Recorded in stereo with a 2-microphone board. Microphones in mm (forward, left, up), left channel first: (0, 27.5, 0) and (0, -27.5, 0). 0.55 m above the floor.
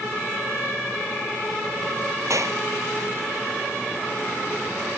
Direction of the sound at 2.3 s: 65° right (ahead or behind).